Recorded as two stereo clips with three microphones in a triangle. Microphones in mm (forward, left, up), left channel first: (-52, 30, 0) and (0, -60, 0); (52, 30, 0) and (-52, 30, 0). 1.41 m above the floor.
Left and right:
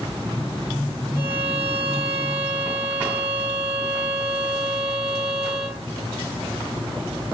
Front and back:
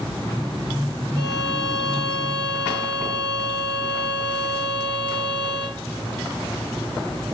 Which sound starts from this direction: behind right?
A violin, at 1.2 s.